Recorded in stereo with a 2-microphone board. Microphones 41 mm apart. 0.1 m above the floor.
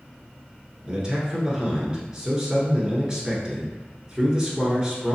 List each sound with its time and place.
0.8 s a man speaking: 25° right (ahead or behind), 1.2 m